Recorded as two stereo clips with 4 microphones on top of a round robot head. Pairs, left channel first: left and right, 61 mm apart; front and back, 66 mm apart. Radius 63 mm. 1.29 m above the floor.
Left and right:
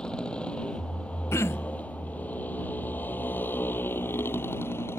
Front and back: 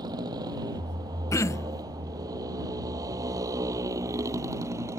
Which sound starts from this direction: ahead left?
Throat clearing, at 1.3 s.